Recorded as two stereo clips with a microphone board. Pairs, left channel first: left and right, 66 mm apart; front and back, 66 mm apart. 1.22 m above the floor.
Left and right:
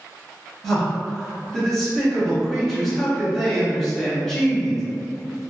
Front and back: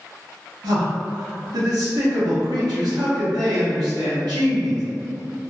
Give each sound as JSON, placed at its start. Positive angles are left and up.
{"t": 0.6, "sound": "a man speaking", "azimuth_deg": 175, "distance_m": 1.2}